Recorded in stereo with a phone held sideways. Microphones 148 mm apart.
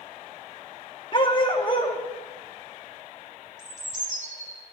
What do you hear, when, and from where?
1.1 s a dog barking: 35° left (ahead or behind), 1.1 m
3.6 s a bird: 55° right (ahead or behind), 2.5 m